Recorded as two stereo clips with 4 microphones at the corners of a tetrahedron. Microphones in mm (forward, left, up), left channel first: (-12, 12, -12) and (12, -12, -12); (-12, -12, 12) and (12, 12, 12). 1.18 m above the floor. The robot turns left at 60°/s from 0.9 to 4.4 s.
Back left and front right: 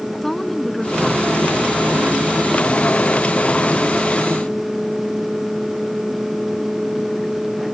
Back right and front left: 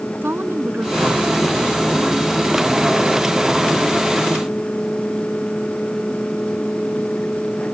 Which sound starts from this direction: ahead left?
A woman speaking, at 0.2 s.